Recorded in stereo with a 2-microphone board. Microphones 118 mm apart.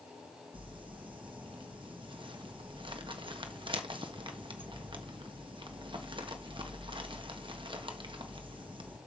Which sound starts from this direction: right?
Crumpling, at 0.5 s.